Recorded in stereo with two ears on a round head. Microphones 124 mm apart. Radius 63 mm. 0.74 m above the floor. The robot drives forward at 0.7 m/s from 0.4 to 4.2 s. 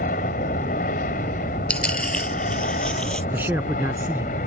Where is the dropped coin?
10° left (ahead or behind); by 3.2 s 5° left (ahead or behind).